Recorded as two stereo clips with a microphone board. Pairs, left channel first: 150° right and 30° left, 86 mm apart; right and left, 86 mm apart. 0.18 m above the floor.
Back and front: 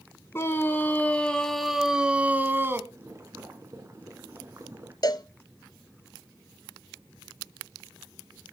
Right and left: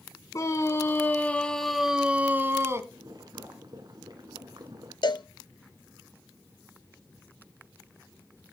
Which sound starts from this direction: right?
A scream, at 0.3 s.